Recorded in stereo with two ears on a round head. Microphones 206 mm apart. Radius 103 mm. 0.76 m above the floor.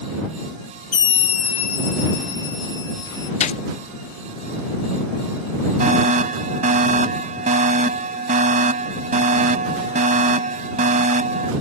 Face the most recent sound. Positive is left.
turn(degrees=-35)  # may be behind; listen again after turning